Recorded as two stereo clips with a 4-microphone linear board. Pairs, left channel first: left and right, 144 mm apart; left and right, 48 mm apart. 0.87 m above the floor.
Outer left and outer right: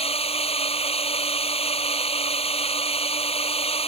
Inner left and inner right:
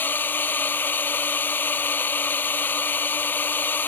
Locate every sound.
0.0 s a drone: 40° left (ahead or behind)